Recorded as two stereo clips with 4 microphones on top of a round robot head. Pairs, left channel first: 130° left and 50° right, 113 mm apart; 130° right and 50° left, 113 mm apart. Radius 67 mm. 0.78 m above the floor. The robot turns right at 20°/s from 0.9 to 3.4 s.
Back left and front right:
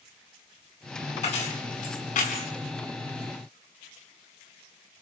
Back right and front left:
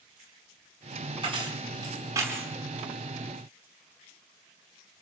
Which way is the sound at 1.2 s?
95° left.